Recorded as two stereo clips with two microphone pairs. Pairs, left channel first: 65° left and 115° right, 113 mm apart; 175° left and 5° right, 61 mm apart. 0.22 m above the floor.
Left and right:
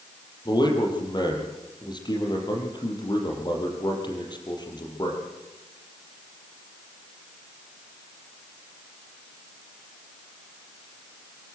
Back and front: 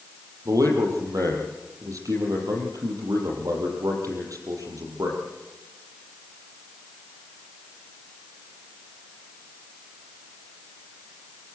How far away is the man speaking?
About 6.5 m.